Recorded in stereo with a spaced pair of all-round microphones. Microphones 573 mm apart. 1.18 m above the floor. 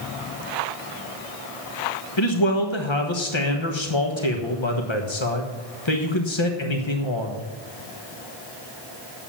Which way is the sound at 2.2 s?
50° left (ahead or behind).